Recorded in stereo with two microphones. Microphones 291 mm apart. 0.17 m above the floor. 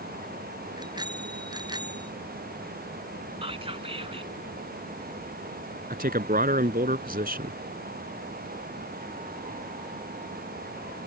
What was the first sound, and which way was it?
A bicycle bell, 15° right (ahead or behind).